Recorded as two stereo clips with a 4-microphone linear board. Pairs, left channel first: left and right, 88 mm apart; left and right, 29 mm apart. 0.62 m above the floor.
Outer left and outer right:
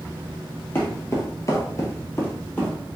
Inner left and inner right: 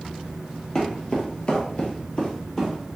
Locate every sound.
0.8 s footsteps: 25° left (ahead or behind), 1.0 m; by 2.7 s 20° left (ahead or behind), 1.2 m